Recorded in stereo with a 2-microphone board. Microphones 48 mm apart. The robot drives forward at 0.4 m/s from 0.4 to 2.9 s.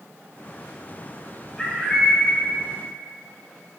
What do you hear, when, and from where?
1.6 s a bird: 15° left (ahead or behind), 3 m